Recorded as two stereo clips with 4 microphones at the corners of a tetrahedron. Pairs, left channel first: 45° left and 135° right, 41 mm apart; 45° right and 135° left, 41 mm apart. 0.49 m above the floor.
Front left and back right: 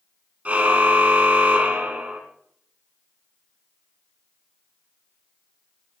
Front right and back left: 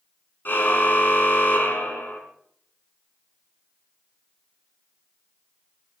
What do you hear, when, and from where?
0.5 s a car horn: 80° right, 3 m